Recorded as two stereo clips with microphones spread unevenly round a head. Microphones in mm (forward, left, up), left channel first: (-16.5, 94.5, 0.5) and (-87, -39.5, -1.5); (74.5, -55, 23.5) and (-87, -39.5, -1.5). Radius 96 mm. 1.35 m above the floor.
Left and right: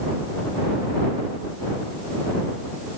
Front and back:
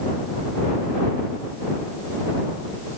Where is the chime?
I don't hear a chime.